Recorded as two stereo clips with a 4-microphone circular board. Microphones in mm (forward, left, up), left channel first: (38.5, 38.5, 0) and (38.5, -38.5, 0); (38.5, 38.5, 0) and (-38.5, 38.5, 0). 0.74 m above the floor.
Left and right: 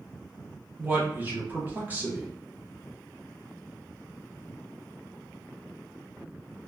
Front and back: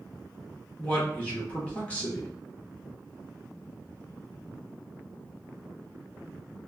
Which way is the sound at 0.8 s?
50° right.